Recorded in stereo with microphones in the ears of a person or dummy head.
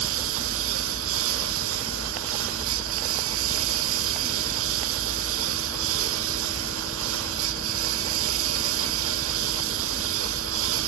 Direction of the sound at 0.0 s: 75° right (ahead or behind).